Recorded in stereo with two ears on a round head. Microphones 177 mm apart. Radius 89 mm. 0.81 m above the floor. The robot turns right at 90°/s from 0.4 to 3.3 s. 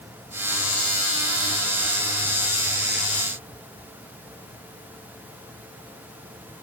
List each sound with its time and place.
Only background noise.